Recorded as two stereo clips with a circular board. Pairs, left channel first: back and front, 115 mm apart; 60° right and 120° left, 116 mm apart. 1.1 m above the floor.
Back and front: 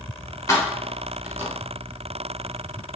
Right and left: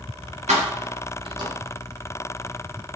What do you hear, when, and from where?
0.5 s keys jangling: 120° left, 0.9 m; by 1.5 s 65° left, 0.9 m